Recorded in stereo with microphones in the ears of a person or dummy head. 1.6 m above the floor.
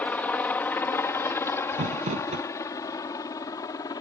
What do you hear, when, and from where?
0.0 s a helicopter: 10° left (ahead or behind); by 4.0 s 20° left (ahead or behind)
1.7 s crumpling: 35° right (ahead or behind)